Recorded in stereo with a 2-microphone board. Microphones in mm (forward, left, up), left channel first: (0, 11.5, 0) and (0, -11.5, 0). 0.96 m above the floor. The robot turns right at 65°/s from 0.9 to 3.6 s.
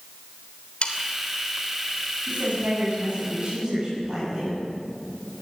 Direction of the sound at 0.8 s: 50° left (ahead or behind).